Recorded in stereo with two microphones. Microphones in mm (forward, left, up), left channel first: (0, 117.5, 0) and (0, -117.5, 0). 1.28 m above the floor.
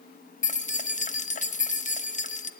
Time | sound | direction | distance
0.4 | keys jangling | 30° left (ahead or behind) | 0.9 m